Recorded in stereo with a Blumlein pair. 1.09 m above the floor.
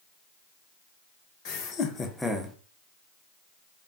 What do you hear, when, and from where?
1.4 s laughter: 40° left, 0.9 m; by 2.6 s 15° right, 0.7 m